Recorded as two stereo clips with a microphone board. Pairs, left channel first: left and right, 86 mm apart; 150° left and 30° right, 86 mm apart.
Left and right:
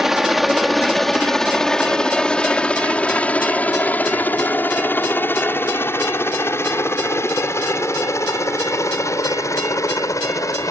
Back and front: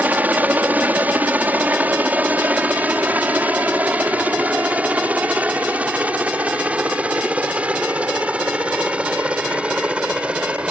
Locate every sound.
0.0 s a helicopter: 10° right; by 10.7 s 45° left